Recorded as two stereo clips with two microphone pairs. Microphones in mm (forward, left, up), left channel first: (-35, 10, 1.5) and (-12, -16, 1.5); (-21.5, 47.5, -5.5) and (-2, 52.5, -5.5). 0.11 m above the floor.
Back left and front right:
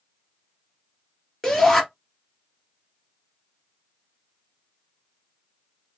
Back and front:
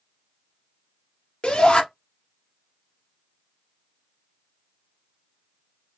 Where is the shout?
150° right, 2.5 m.